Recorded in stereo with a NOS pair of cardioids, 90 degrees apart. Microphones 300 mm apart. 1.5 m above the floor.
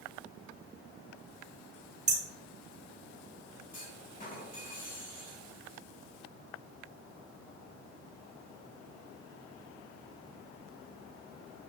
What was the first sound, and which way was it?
Hammering, 25° right.